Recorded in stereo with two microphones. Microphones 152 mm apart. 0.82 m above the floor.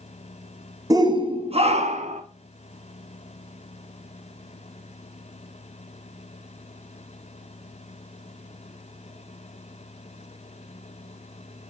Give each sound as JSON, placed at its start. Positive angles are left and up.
{"t": 0.9, "sound": "a shout", "side_deg": -25, "distance_m": 0.8}